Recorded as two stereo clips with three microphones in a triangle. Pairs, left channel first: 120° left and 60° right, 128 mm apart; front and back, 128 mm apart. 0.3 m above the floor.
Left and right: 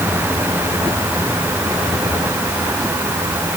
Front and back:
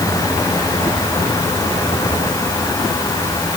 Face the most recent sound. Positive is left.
No sound to turn to.